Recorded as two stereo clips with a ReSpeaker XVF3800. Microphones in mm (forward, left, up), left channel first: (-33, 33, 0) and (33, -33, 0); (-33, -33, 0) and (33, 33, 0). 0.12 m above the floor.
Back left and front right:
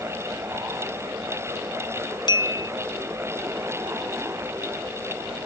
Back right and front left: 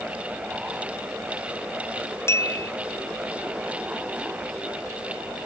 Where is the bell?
165° left.